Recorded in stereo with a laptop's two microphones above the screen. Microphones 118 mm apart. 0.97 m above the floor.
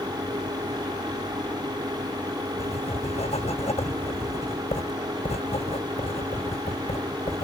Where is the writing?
65° left (ahead or behind).